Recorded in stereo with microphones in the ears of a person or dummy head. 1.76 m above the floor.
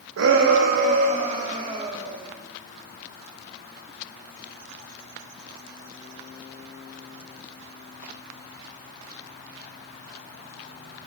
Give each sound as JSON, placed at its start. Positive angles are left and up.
{"t": 0.2, "sound": "a shout", "side_deg": -80, "distance_m": 1.3}